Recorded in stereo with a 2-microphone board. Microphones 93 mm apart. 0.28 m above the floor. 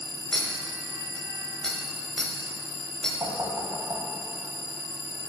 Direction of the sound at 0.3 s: 10° left (ahead or behind).